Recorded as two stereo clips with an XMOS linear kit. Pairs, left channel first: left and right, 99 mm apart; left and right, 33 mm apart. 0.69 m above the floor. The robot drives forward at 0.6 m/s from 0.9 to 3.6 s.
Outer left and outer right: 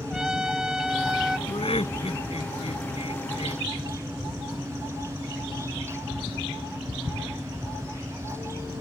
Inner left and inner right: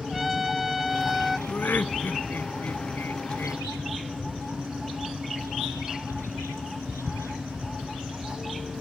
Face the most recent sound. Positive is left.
turn(degrees=85)